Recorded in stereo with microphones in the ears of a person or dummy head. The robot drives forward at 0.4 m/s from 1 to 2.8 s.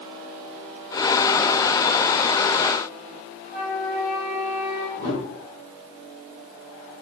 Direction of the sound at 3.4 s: Centre (ahead or behind).